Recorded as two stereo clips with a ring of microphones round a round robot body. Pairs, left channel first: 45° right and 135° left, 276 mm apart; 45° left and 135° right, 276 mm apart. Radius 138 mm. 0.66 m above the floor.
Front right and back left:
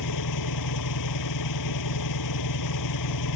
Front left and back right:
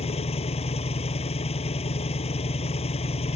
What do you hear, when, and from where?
0.0 s an engine running: 25° right